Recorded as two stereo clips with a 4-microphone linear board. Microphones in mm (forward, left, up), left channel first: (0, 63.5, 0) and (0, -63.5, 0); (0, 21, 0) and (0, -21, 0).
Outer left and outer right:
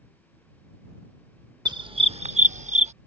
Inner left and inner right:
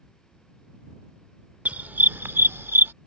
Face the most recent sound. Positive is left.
turn(degrees=-65)  # may be behind; listen again after turning